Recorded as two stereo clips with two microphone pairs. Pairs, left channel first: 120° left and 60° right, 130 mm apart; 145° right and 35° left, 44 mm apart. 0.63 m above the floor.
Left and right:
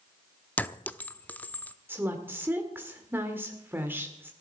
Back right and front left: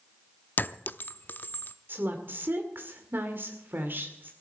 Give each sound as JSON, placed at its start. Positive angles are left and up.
{"t": 0.6, "sound": "a clink", "azimuth_deg": -170, "distance_m": 0.7}
{"t": 1.9, "sound": "a woman speaking", "azimuth_deg": 10, "distance_m": 2.0}